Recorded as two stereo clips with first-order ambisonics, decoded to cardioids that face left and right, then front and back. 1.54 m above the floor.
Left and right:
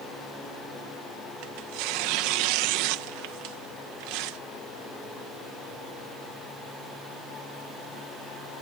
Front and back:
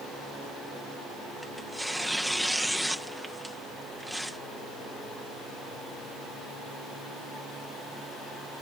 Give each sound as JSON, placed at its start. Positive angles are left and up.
{"t": 1.4, "sound": "tearing paper", "azimuth_deg": -90}